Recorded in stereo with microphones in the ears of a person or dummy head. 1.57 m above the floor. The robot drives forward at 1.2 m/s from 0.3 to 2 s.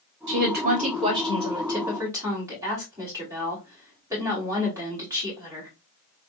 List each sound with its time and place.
0.3 s a woman speaking: 55° right (ahead or behind), 0.8 m; by 5.7 s 15° right (ahead or behind), 2.5 m